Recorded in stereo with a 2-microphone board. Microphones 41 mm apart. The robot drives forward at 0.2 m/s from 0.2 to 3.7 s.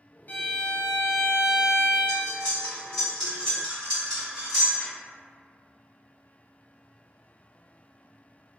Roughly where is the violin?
Left.